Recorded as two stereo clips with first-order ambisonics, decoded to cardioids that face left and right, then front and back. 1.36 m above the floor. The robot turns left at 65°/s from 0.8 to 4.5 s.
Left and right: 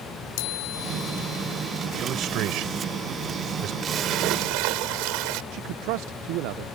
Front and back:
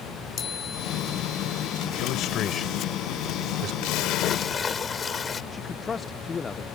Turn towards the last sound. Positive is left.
turn(degrees=-70)